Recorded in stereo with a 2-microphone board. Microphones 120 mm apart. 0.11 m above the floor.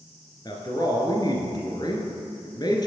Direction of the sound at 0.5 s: 35° left (ahead or behind).